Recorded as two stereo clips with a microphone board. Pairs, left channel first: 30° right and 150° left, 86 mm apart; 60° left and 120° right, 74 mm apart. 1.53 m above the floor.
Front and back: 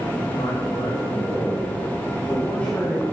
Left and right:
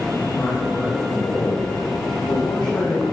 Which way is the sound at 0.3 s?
Straight ahead.